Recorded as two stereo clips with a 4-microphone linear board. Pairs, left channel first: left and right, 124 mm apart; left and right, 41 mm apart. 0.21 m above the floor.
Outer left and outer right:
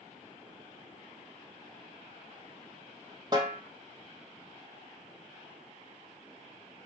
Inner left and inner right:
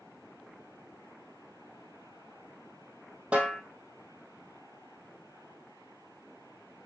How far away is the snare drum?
About 1.8 m.